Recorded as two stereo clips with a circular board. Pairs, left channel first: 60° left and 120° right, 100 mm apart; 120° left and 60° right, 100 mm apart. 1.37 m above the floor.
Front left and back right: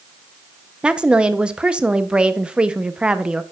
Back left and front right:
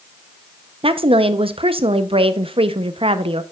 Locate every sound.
0.8 s a woman speaking: 40° right, 0.6 m